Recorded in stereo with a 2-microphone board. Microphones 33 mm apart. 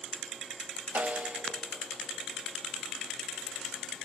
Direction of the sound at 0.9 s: 55° right (ahead or behind).